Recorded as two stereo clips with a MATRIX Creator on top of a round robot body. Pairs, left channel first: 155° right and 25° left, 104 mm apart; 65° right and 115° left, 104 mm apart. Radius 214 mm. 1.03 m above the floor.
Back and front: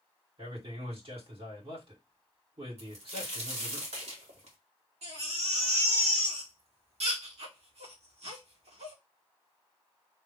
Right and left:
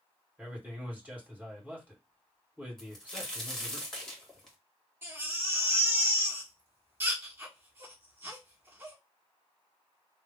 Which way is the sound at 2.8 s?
20° left.